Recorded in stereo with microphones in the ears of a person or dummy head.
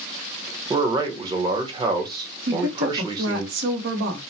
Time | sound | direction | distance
0.7 | a man speaking | 25° right (ahead or behind) | 0.9 m
2.5 | a woman speaking | 65° right (ahead or behind) | 1.0 m